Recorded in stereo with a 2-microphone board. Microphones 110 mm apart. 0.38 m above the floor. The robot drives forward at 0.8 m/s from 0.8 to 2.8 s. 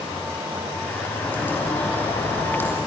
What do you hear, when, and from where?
1.2 s a bird: 15° left (ahead or behind), 5 m; by 2.8 s 20° left (ahead or behind), 4 m